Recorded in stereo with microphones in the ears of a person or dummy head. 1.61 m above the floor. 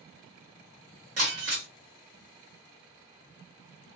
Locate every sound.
1.2 s breaking glass: 50° right (ahead or behind), 1.2 m